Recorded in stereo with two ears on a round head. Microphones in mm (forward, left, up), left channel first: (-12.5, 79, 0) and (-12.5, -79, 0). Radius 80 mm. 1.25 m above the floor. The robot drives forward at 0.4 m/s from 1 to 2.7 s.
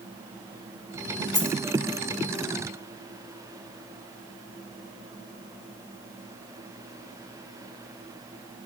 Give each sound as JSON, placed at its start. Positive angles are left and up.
{"t": 1.3, "sound": "a dropped coin", "side_deg": 5, "distance_m": 1.9}